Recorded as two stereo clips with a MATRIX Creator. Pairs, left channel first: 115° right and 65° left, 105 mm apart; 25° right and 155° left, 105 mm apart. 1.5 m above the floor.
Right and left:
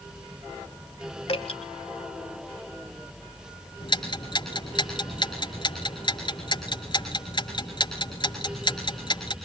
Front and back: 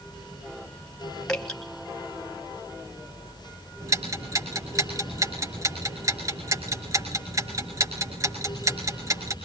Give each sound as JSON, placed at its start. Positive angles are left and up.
{"t": 1.3, "sound": "dripping", "azimuth_deg": -105, "distance_m": 3.0}
{"t": 3.8, "sound": "ticking", "azimuth_deg": -150, "distance_m": 5.0}